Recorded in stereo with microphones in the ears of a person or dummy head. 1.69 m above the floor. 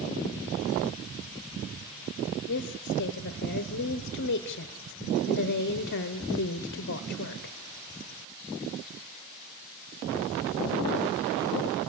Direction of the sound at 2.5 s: 55° left (ahead or behind).